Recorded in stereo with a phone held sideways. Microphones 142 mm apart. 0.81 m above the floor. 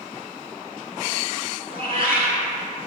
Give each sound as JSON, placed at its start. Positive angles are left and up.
{"t": 1.7, "sound": "a cat meowing", "side_deg": -45, "distance_m": 1.8}